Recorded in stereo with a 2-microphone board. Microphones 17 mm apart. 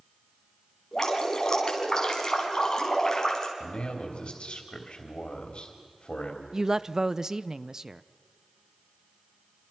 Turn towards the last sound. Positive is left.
turn(degrees=-30)  # may be behind; listen again after turning